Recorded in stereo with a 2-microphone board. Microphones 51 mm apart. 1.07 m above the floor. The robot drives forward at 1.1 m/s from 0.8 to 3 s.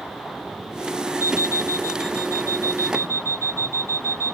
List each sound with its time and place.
1.2 s an alarm clock: 60° right (ahead or behind); by 4.3 s 85° right